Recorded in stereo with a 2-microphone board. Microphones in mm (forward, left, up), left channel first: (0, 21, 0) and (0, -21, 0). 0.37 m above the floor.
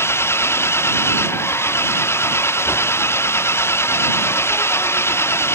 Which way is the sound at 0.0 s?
70° left (ahead or behind).